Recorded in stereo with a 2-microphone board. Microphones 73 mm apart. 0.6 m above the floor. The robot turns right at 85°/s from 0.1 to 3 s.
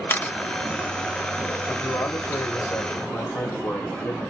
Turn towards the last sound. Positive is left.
turn(degrees=130)